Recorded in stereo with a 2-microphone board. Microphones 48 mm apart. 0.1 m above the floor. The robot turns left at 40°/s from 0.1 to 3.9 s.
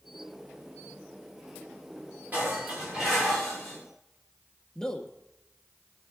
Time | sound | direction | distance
2.3 | dishes clattering | 140° right | 7.5 m
4.8 | a man speaking | 10° left (ahead or behind) | 1.5 m